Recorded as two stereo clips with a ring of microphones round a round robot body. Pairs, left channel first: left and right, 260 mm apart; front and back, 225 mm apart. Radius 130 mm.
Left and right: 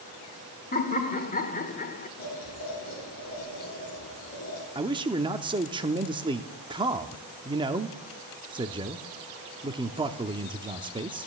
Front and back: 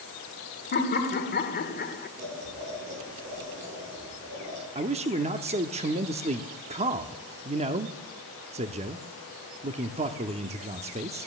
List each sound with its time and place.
0.7 s laughter: 35° left, 1.5 m
2.2 s boiling: 145° left, 8.5 m
4.8 s a man speaking: 145° right, 0.7 m